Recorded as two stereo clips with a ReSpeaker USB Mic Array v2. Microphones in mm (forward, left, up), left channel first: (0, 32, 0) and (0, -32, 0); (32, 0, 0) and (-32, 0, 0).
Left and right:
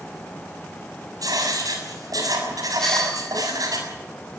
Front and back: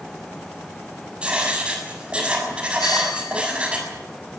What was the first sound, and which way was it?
Writing, 105° right.